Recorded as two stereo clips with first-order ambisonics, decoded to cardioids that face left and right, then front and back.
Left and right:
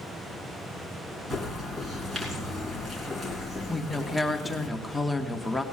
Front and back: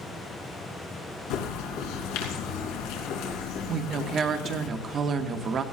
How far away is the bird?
About 2.5 m.